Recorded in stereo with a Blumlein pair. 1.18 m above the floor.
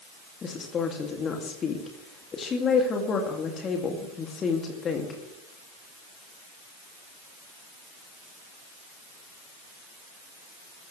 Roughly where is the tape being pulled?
I don't hear tape being pulled.